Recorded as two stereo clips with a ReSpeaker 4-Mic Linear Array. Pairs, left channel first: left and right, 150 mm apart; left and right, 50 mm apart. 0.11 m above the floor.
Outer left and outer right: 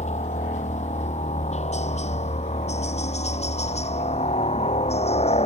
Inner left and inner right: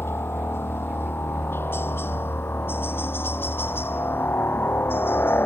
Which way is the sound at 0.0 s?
50° left (ahead or behind).